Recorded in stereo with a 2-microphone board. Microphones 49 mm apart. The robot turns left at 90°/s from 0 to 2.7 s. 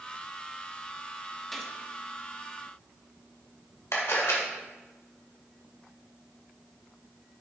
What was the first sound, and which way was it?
A gunshot, 5° left (ahead or behind).